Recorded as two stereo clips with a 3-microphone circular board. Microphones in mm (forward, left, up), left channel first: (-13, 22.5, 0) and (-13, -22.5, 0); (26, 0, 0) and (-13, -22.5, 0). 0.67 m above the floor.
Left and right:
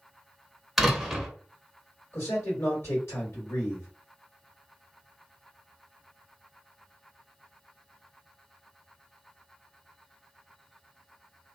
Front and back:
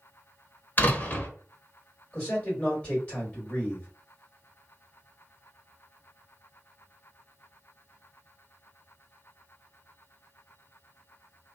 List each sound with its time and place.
0.8 s a door slam: straight ahead, 0.8 m
2.1 s a man speaking: 95° left, 1.9 m